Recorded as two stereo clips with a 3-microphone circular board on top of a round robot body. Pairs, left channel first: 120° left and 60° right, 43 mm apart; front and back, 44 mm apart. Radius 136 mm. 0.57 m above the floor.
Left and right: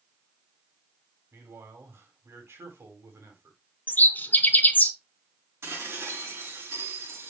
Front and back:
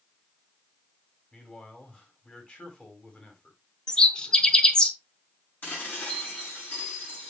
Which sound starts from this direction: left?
A bird, at 3.9 s.